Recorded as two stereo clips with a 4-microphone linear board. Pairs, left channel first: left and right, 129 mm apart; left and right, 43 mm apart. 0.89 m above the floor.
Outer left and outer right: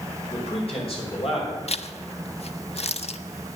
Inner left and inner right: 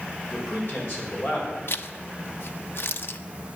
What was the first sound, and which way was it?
A man speaking, 50° left (ahead or behind).